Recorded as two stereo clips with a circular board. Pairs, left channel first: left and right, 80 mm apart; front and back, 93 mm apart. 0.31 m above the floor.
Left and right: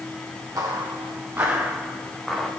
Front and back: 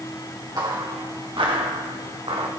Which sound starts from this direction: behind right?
Footsteps, at 0.6 s.